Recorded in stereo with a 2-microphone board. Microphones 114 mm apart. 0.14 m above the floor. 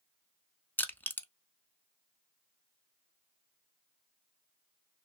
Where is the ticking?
No ticking in this recording.